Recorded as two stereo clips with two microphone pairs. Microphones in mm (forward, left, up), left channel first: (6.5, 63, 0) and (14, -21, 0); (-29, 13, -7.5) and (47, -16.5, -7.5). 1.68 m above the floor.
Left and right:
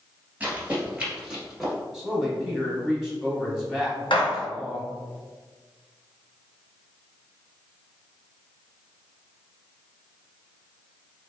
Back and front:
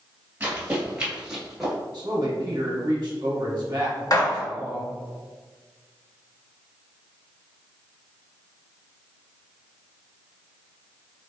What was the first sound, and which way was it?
Running footsteps, 45° right.